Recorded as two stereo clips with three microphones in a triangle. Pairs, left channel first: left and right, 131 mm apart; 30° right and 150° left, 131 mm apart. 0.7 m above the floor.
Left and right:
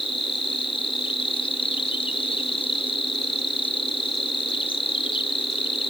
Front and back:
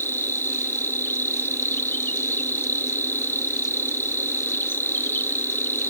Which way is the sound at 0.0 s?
45° left.